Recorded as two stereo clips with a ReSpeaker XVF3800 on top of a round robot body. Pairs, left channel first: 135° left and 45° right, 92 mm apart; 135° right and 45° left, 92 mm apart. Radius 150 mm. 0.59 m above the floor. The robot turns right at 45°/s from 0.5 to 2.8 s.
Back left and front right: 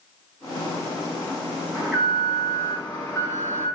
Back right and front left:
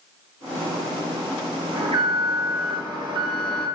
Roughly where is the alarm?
Ahead left.